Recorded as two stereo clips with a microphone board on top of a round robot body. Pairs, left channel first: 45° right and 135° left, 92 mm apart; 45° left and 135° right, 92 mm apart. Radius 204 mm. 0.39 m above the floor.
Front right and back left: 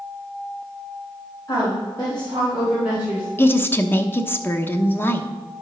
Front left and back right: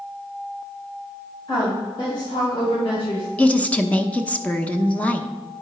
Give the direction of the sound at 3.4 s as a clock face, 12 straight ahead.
12 o'clock.